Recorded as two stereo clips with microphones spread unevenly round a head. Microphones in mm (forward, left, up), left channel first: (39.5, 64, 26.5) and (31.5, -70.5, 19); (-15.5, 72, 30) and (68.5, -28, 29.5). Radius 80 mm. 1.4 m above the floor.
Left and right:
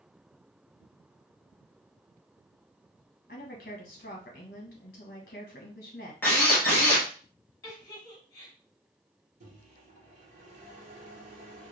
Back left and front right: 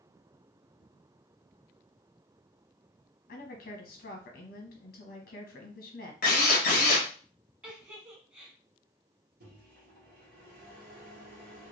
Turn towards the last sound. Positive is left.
turn(degrees=-60)